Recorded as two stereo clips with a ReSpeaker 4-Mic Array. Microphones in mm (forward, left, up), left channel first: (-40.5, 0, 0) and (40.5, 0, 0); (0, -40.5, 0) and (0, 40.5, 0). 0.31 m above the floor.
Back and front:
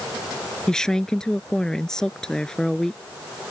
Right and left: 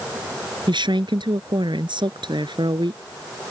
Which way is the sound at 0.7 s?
100° left.